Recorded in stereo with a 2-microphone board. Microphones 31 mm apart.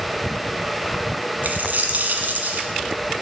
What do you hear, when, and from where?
1.4 s a dropped coin: 65° right (ahead or behind), 1.3 m